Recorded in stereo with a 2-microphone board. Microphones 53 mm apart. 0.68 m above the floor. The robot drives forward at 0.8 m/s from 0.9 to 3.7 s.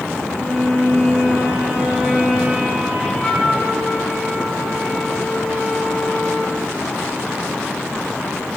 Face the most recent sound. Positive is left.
turn(degrees=5)  # may be behind; listen again after turning